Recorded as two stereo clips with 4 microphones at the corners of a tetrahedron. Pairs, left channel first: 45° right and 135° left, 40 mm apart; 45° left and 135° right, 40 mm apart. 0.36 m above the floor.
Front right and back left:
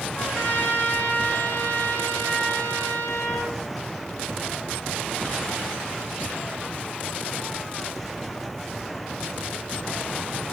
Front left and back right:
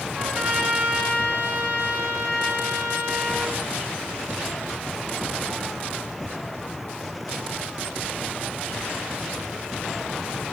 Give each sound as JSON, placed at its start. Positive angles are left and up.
{"t": 0.1, "sound": "a trumpet", "azimuth_deg": -85, "distance_m": 3.5}